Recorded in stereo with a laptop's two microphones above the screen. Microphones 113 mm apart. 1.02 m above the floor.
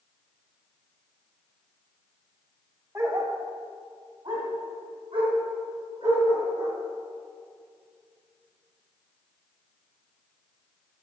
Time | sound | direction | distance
3.0 | a dog barking | 25° right (ahead or behind) | 1.5 m